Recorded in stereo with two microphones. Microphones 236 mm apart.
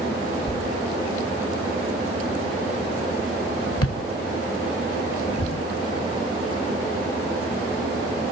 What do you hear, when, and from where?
0.5 s a thud: 75° left (ahead or behind), 1.2 m